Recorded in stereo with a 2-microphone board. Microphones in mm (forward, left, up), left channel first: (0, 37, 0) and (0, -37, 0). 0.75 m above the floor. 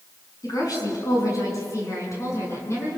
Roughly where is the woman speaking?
Left.